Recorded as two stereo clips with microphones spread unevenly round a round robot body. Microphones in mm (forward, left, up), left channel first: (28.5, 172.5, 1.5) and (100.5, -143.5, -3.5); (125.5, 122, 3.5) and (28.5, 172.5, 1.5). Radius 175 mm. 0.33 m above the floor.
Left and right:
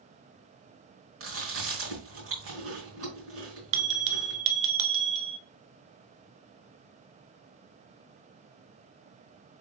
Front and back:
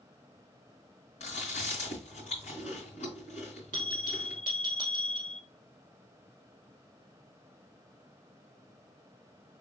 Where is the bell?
85° right, 1.0 m.